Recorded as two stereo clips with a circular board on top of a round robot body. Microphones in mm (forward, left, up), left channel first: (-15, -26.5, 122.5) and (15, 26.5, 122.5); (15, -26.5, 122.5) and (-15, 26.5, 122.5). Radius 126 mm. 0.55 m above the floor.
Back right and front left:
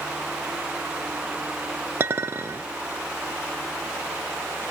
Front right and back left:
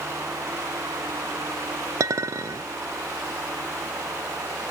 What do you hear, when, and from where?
2.0 s a clink: 105° left, 0.5 m